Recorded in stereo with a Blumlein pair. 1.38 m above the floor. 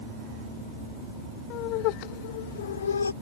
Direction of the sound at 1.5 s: 40° left.